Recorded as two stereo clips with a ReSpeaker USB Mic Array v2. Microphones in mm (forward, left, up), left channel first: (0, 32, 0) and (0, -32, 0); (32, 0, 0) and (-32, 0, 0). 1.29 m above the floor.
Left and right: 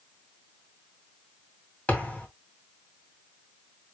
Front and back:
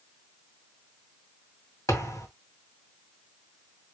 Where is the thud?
25° left, 2 m.